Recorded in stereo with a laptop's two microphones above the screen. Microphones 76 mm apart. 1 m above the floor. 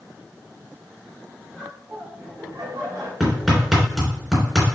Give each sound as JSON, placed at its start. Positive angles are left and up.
{"t": 1.5, "sound": "laughter", "side_deg": -5, "distance_m": 2.0}
{"t": 3.2, "sound": "hammering", "side_deg": 0, "distance_m": 3.0}